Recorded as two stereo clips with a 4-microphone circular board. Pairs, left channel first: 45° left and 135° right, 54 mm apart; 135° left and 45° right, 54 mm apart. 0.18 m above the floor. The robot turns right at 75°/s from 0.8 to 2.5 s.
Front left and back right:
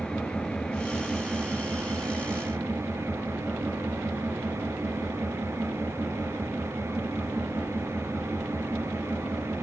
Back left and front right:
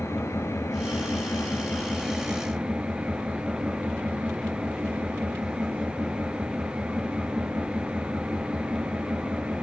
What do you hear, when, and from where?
0.0 s an engine running: 120° left, 3 m; by 9.6 s 115° right, 3 m